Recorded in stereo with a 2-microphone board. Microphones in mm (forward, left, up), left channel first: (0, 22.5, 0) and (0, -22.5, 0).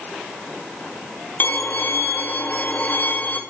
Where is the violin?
40° left (ahead or behind), 1.2 m.